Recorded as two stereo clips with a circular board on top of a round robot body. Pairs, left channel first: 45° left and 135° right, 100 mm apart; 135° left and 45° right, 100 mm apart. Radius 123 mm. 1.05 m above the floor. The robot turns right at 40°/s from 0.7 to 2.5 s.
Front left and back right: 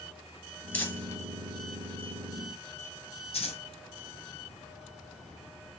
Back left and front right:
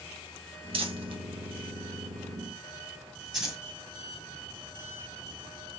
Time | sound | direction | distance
0.7 | crumpling | 30° right | 2 m